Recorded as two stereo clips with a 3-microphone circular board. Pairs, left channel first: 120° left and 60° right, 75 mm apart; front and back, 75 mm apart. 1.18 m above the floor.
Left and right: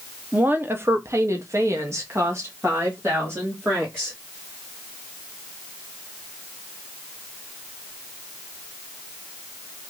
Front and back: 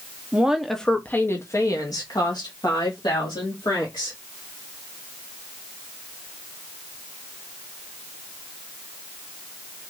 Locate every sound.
0.3 s a woman speaking: 115° right, 0.7 m; by 4.2 s straight ahead, 2.0 m